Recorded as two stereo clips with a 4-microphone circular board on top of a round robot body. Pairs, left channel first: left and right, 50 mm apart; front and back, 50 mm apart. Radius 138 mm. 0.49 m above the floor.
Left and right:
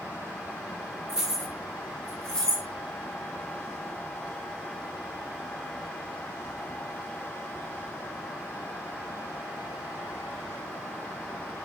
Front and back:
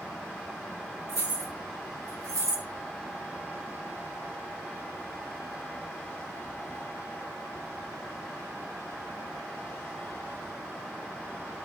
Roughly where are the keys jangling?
Behind.